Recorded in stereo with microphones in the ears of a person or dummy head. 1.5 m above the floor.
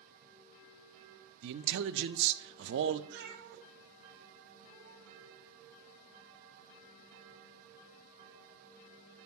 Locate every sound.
1.4 s a man speaking: 70° right (ahead or behind), 0.6 m
3.1 s a cat meowing: 65° right (ahead or behind), 1.6 m